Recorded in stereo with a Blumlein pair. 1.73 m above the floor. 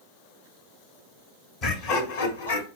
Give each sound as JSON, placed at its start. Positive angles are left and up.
{"t": 1.6, "sound": "laughter", "azimuth_deg": 35, "distance_m": 1.1}